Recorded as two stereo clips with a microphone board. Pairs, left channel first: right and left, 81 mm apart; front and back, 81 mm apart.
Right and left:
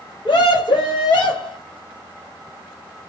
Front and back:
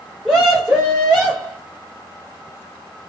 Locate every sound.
0.2 s a scream: 100° right, 0.9 m